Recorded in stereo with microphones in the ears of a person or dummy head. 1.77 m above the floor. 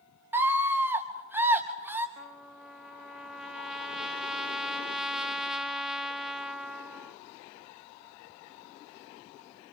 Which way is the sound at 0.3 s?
15° right (ahead or behind).